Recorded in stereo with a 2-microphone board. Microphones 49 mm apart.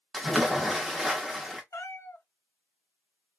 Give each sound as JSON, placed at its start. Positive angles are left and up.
{"t": 0.1, "sound": "a splash", "side_deg": 0, "distance_m": 0.8}
{"t": 1.7, "sound": "a cat meowing", "side_deg": 75, "distance_m": 0.7}